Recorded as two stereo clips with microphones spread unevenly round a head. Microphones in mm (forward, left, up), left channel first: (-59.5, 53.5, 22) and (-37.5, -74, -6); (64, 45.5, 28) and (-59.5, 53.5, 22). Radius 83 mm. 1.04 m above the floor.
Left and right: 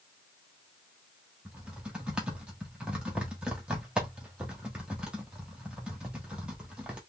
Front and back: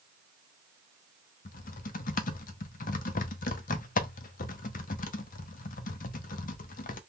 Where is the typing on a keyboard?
5° left, 0.5 m.